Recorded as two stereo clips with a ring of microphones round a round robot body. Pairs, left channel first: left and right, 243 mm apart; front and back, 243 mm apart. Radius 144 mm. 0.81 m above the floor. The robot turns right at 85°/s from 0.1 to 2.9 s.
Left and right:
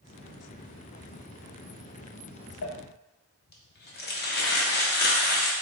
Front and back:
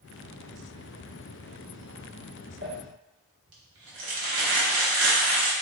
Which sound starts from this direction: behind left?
Crumpling, at 2.6 s.